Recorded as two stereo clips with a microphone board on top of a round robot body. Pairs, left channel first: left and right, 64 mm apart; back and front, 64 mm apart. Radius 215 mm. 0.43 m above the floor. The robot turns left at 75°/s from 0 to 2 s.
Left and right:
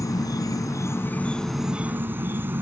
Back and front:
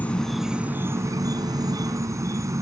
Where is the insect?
115° left; by 2.6 s 35° right.